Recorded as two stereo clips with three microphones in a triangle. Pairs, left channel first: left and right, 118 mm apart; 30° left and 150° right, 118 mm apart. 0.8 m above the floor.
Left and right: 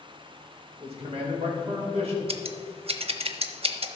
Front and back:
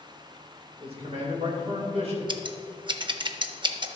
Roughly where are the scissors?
Right.